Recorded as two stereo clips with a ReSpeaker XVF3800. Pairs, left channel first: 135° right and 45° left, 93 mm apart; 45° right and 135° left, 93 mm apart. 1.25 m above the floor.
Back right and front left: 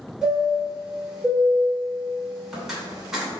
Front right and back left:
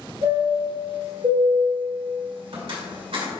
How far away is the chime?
About 2 m.